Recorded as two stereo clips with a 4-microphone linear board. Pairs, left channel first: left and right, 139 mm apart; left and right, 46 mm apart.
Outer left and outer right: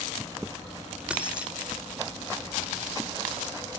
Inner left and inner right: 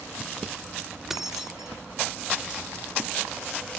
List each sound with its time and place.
1.1 s keys jangling: 10° right (ahead or behind), 1.0 m